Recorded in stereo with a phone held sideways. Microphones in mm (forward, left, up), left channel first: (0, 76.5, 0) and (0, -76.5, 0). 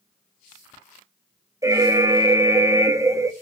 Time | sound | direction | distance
1.6 | an alarm | 20° right (ahead or behind) | 1.1 m